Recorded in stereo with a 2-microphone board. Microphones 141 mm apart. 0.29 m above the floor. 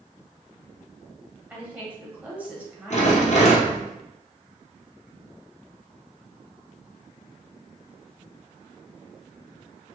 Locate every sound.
1.5 s a woman speaking: 10° right (ahead or behind), 1.5 m
2.9 s a rattle: 55° left (ahead or behind), 1.9 m